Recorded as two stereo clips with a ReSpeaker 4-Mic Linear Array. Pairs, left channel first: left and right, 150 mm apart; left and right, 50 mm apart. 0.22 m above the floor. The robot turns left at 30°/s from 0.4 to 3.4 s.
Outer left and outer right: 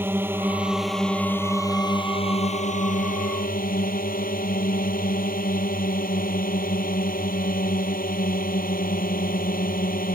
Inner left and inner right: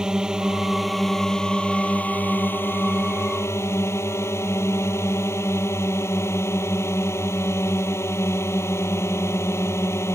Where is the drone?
165° right; by 10.2 s 105° left.